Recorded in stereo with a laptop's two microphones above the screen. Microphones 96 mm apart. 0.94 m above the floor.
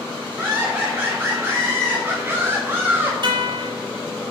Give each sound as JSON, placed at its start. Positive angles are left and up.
{"t": 0.4, "sound": "laughter", "side_deg": -25, "distance_m": 3.0}
{"t": 3.2, "sound": "a guitar", "side_deg": -70, "distance_m": 3.0}